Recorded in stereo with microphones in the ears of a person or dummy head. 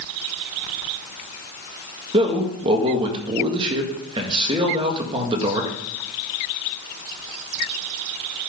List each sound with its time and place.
2.1 s a man speaking: 30° right (ahead or behind), 1.6 m